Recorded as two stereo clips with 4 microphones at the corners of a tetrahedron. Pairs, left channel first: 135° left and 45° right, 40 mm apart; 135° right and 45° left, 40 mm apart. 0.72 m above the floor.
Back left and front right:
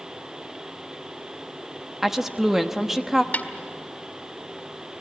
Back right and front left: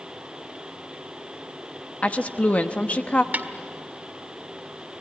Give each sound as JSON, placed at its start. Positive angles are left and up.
{"t": 2.0, "sound": "a woman speaking", "azimuth_deg": -125, "distance_m": 1.1}
{"t": 3.3, "sound": "a snare drum", "azimuth_deg": 90, "distance_m": 1.7}